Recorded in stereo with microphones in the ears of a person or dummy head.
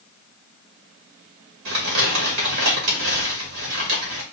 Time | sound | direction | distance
1.6 | crumpling | 75° right (ahead or behind) | 2.5 m